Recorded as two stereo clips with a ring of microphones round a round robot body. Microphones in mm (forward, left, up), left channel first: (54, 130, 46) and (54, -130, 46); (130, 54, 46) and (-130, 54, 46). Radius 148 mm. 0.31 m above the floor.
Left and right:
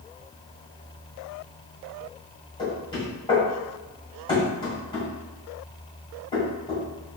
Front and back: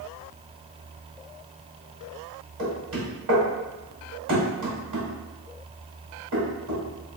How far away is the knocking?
About 1.7 m.